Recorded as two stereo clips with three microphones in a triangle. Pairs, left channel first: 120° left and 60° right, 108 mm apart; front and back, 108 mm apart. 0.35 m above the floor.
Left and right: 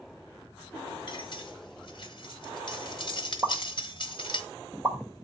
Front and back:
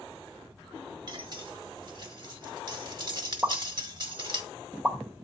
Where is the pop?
105° right, 1.4 m.